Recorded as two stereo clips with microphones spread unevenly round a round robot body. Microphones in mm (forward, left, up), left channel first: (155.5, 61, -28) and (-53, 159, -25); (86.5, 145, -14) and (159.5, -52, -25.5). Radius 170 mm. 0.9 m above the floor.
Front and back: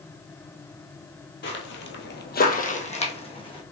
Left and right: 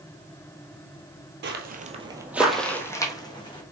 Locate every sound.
1.4 s footsteps: 55° right, 1.3 m; by 3.6 s 45° left, 3 m